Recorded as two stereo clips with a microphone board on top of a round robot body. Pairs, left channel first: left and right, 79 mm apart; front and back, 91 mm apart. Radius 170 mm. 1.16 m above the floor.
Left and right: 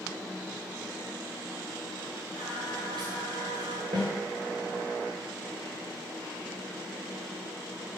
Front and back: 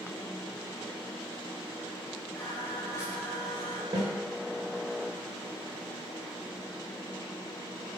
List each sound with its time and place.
2.4 s singing: 60° right, 3 m
3.9 s a snare drum: 130° right, 3 m